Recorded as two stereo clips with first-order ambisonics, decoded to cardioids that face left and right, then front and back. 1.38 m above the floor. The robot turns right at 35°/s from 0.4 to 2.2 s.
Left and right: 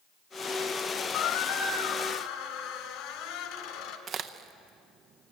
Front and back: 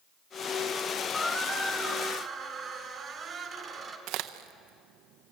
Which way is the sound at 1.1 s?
70° left.